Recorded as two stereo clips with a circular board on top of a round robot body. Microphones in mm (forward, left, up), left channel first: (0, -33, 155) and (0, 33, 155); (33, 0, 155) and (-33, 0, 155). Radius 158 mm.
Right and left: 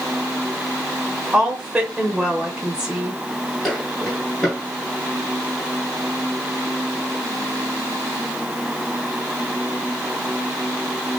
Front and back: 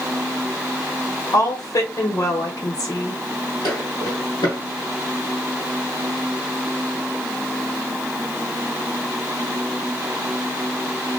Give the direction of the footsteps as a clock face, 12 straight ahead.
12 o'clock.